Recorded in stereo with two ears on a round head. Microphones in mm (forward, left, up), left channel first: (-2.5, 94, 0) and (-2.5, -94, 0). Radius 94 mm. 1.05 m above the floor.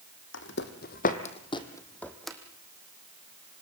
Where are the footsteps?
60° left (ahead or behind), 2.5 m; by 2.4 s centre (ahead or behind), 2.5 m.